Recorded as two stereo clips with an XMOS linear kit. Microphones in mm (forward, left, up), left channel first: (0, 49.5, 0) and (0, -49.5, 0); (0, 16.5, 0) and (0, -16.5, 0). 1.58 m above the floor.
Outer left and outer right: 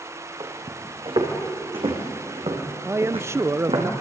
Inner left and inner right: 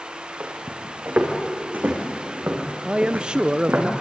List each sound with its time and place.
0.4 s footsteps: 55° right (ahead or behind), 5 m; by 3.9 s 70° right (ahead or behind), 5 m
2.9 s a man speaking: 25° right (ahead or behind), 0.5 m